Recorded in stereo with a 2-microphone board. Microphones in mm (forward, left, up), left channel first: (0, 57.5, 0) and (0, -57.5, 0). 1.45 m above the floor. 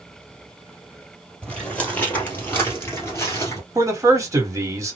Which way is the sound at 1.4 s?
10° left (ahead or behind).